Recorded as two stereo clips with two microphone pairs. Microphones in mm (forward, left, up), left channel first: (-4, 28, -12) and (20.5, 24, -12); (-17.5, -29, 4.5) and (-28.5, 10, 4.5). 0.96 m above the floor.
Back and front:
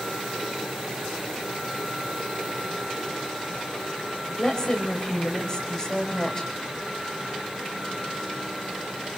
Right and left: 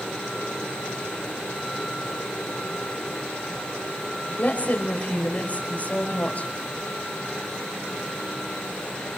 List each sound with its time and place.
4.4 s a woman speaking: 125° right, 5.5 m